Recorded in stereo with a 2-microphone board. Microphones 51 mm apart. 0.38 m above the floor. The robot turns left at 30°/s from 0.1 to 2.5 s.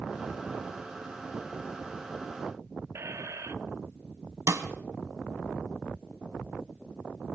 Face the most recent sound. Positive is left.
turn(degrees=-65)  # may be behind; listen again after turning